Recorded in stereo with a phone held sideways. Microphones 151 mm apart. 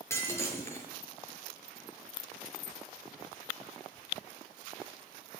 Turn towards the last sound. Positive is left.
turn(degrees=15)  # may be behind; listen again after turning